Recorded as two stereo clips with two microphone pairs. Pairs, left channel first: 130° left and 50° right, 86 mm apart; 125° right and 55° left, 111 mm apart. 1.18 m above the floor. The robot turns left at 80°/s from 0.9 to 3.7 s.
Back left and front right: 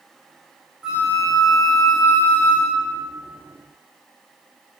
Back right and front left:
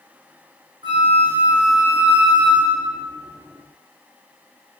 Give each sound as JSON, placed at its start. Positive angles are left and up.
{"t": 0.8, "sound": "a flute", "azimuth_deg": 30, "distance_m": 0.8}